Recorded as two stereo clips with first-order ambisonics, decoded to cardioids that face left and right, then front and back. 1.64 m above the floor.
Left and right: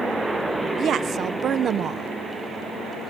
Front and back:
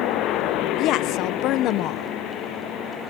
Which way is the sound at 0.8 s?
35° right.